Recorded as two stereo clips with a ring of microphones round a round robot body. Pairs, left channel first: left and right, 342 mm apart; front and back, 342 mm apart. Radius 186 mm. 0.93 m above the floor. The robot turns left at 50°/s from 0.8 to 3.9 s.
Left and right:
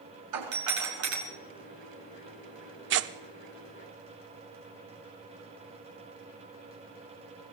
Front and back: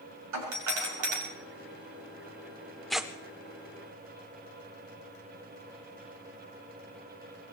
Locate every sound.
0.3 s a doorbell: 135° right, 5.5 m; by 1.2 s 155° right, 5.5 m
2.9 s tearing paper: 90° right, 0.5 m; by 3.1 s 100° right, 0.5 m